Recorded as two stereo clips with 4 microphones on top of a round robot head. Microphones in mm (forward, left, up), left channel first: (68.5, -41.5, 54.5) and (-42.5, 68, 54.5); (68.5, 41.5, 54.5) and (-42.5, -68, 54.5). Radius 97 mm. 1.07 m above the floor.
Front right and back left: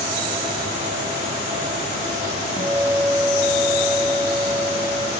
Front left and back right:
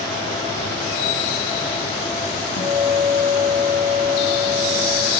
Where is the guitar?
55° left, 1.4 m.